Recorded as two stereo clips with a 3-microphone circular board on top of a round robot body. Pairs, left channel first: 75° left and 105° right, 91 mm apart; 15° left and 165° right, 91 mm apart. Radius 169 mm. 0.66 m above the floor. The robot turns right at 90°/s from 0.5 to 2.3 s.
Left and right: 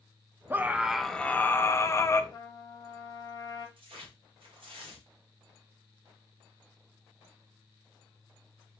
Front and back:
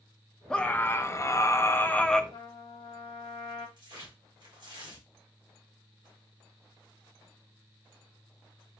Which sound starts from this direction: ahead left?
A trumpet, at 2.3 s.